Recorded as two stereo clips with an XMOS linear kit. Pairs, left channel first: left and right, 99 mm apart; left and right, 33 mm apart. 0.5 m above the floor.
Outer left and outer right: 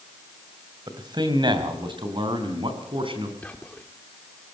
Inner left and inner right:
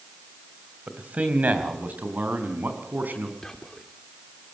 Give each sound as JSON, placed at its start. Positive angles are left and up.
{"t": 0.9, "sound": "a man speaking", "side_deg": -45, "distance_m": 2.5}
{"t": 3.4, "sound": "whispering", "side_deg": 15, "distance_m": 0.9}